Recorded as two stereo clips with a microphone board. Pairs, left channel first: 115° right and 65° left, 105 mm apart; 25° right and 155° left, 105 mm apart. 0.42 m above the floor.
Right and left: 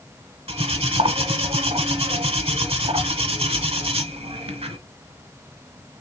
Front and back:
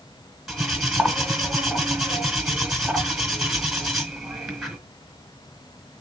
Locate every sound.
0.5 s cutlery clinking: 70° left, 1.3 m